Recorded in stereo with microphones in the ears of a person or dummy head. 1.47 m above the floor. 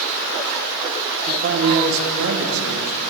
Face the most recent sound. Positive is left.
turn(degrees=-80)